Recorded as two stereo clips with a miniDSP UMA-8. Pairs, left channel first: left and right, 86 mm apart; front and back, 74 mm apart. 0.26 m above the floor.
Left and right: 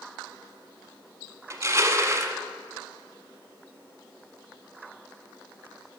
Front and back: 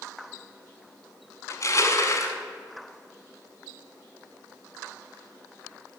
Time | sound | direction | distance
1.5 | crushing | 40° right | 0.9 m